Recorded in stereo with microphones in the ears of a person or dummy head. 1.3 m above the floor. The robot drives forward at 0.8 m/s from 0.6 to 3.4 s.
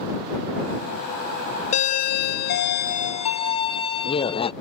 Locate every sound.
1.7 s a doorbell: 35° left (ahead or behind); by 4.5 s 30° left (ahead or behind)